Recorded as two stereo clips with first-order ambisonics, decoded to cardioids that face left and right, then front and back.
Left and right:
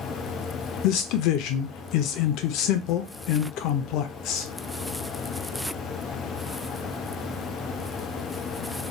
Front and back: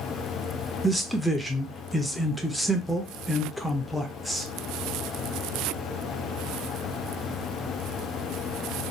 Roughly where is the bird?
No bird in this recording.